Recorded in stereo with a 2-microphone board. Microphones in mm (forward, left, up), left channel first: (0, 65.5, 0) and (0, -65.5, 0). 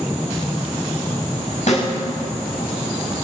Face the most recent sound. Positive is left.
turn(degrees=65)  # may be behind; listen again after turning